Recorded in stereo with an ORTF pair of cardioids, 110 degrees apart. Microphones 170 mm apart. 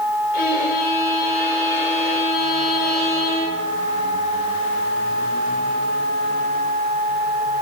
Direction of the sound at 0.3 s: 65° left.